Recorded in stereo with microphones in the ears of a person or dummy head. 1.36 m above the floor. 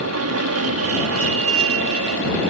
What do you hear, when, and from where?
0.0 s an aircraft: 65° right (ahead or behind); by 2.5 s 60° right (ahead or behind)